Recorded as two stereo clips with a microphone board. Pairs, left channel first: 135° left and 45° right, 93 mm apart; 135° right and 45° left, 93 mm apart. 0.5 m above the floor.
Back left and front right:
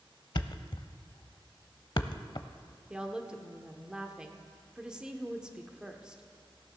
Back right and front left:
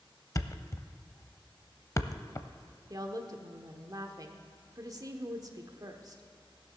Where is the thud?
170° left, 0.5 m.